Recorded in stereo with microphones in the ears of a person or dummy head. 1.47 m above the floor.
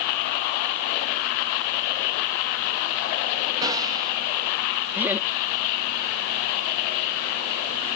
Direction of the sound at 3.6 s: 20° right (ahead or behind).